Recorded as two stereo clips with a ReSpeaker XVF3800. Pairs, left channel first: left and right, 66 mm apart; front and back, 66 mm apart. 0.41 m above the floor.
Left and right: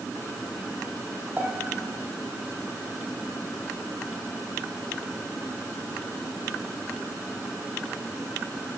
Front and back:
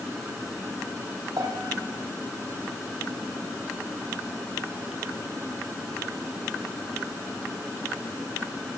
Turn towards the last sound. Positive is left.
turn(degrees=-155)